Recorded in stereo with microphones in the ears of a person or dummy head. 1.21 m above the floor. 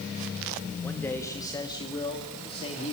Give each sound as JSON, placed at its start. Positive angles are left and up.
{"t": 0.8, "sound": "a man speaking", "side_deg": 10, "distance_m": 2.5}